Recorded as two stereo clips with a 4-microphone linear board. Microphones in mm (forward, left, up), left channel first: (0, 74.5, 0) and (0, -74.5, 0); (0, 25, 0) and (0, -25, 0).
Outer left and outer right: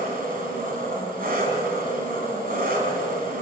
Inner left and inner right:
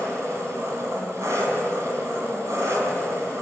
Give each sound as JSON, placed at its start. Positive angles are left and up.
{"t": 0.0, "sound": "an engine running", "side_deg": -80, "distance_m": 4.5}